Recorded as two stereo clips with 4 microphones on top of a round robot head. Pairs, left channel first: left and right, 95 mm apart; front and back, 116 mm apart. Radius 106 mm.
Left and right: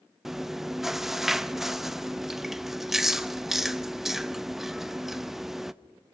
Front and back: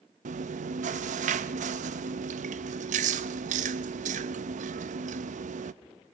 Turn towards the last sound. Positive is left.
turn(degrees=-175)